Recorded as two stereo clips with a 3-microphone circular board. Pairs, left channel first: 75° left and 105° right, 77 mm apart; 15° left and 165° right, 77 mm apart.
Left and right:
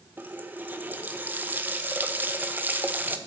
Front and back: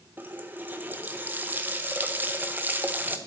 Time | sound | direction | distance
0.2 | a running tap | 135° right | 0.9 m